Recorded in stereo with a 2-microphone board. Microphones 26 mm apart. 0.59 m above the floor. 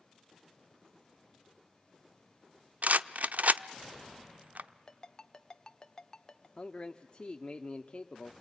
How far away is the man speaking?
About 0.9 m.